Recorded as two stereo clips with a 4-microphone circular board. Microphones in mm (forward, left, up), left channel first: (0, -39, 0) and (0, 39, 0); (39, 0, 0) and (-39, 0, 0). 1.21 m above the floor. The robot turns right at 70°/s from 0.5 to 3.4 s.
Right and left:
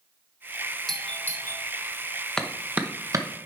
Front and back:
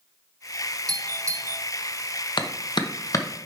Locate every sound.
0.9 s a doorbell: straight behind, 1.0 m; by 1.6 s 125° right, 1.0 m
2.4 s a clap: 10° right, 0.9 m; by 3.2 s 55° left, 0.9 m